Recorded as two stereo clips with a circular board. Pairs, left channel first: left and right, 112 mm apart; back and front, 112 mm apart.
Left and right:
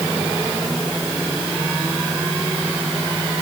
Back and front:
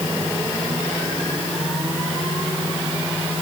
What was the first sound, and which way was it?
Only background noise.